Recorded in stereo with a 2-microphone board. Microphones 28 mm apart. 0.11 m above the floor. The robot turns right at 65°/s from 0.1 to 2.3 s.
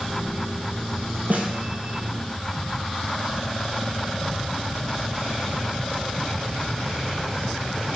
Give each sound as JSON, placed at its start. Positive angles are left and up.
{"t": 1.3, "sound": "a snare drum", "side_deg": -60, "distance_m": 1.0}